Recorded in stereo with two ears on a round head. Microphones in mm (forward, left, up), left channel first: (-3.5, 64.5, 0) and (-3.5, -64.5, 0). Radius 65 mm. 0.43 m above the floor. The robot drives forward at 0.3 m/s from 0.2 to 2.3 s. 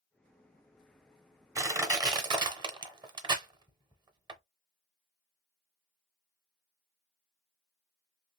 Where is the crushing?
20° right (ahead or behind), 0.8 m; by 4.4 s 30° right (ahead or behind), 0.6 m.